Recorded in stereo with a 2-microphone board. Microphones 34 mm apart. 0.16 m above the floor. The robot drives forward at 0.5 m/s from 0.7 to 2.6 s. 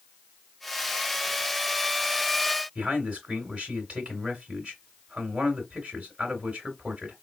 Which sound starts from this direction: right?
A man speaking, at 2.8 s.